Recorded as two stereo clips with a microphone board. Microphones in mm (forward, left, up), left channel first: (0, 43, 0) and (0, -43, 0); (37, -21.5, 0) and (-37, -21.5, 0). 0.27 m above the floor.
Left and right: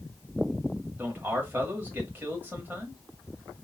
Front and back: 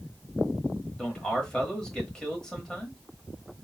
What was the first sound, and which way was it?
A man speaking, 70° right.